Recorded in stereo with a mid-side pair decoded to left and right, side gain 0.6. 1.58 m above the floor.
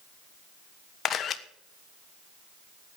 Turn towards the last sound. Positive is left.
turn(degrees=45)